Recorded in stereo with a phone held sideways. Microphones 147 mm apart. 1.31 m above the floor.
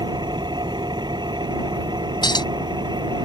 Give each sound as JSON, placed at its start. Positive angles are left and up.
{"t": 0.0, "sound": "an engine running", "side_deg": -30}
{"t": 2.2, "sound": "a clink", "side_deg": 30}